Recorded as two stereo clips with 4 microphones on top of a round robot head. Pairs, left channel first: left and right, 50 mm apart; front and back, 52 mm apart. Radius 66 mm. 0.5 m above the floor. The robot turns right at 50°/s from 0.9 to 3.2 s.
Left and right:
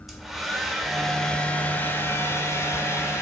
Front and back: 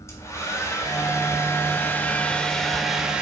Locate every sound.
0.1 s a hair dryer: 5° right, 2 m; by 3.2 s 110° left, 2 m